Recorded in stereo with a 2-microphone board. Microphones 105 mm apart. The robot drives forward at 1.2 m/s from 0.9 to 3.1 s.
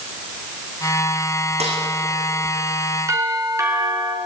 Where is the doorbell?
30° right (ahead or behind), 4.5 m.